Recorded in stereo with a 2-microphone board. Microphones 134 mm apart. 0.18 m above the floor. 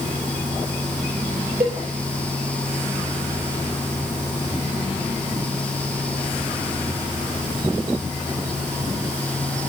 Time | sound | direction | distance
1.6 | a cowbell | 40° right (ahead or behind) | 4.5 m